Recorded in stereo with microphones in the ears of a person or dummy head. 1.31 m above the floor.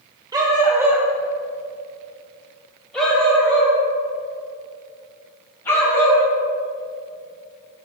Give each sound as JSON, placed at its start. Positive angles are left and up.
{"t": 0.3, "sound": "a dog barking", "side_deg": -20, "distance_m": 1.7}